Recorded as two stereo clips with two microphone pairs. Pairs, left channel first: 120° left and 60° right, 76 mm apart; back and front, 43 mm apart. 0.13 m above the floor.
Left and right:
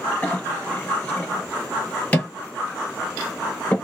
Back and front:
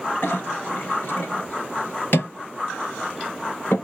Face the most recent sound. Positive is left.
turn(degrees=-175)